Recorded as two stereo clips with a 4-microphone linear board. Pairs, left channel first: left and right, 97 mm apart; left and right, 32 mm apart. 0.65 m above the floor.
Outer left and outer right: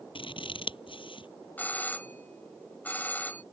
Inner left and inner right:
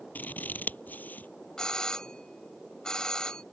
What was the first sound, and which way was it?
Scissors, 70° left (ahead or behind).